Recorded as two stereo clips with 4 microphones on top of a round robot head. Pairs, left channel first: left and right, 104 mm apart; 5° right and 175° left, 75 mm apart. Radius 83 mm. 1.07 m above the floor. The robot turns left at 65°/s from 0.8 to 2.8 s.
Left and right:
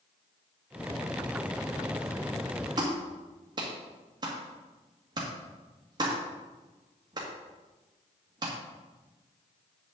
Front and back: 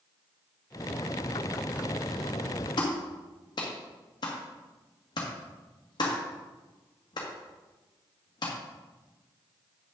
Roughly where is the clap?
Ahead right.